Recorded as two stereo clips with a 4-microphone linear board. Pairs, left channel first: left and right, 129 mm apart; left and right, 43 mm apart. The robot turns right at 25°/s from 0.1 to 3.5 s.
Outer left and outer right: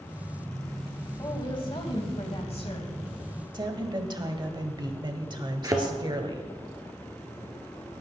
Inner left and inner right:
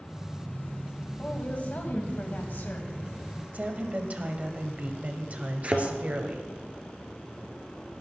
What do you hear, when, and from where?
1.2 s a woman speaking: 45° left, 2.0 m; by 2.9 s 90° left, 2.0 m
3.5 s a woman speaking: 35° right (ahead or behind), 1.2 m
5.6 s a thud: 30° right (ahead or behind), 1.5 m